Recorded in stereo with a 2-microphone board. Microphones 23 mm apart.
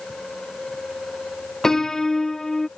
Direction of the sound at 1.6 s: 20° left (ahead or behind).